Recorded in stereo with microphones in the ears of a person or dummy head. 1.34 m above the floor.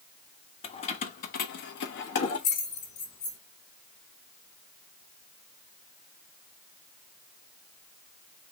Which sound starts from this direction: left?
Keys jangling, at 0.6 s.